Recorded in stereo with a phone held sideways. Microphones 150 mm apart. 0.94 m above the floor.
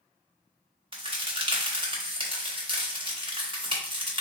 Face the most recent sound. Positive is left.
turn(degrees=-35)  # may be behind; listen again after turning